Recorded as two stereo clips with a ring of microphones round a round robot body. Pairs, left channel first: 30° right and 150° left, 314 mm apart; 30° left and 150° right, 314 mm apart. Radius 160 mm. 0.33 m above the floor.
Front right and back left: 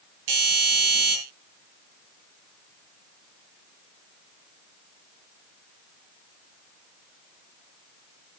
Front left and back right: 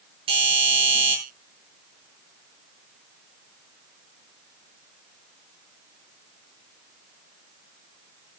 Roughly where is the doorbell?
Behind left.